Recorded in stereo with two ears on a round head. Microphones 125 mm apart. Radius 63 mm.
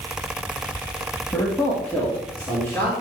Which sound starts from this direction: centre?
A man speaking, at 1.3 s.